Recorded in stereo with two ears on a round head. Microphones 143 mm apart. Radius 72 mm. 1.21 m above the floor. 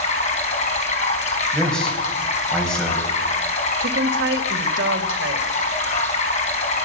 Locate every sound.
0.0 s running water: 45° left (ahead or behind), 4 m
1.5 s a man speaking: 5° left (ahead or behind), 6 m
3.8 s a woman speaking: 85° right, 1.9 m